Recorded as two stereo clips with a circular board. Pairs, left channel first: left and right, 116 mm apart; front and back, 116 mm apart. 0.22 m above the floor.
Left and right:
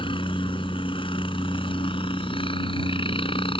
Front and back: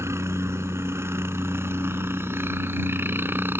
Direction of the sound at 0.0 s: 120° left.